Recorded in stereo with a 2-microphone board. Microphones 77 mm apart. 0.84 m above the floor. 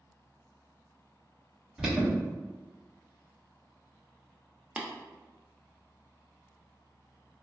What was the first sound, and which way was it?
An alarm, 10° right (ahead or behind).